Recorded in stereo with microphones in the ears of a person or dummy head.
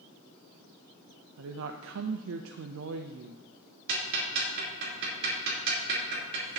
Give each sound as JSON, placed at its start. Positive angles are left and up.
{"t": 1.4, "sound": "a woman speaking", "side_deg": -75, "distance_m": 0.6}
{"t": 3.9, "sound": "ticking", "side_deg": -60, "distance_m": 4.0}